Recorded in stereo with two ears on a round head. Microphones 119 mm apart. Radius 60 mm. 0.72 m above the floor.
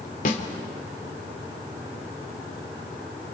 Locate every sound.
0.2 s a snare drum: 65° left (ahead or behind), 2.5 m